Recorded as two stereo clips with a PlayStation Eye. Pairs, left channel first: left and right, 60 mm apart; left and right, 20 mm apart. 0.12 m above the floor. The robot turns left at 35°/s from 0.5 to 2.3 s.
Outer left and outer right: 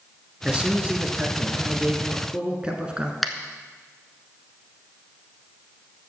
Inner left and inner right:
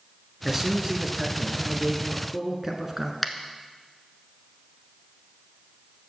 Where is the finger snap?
Centre (ahead or behind), 0.9 m.